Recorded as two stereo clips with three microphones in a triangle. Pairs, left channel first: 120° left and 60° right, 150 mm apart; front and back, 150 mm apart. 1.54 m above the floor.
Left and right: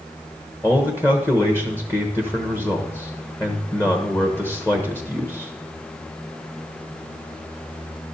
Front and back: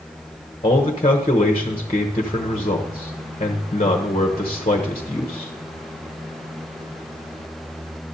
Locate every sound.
0.6 s a man speaking: 45° left, 1.1 m